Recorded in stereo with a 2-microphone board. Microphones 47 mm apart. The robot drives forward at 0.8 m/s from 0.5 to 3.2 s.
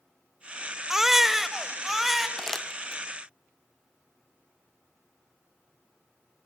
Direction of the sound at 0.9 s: 10° right (ahead or behind).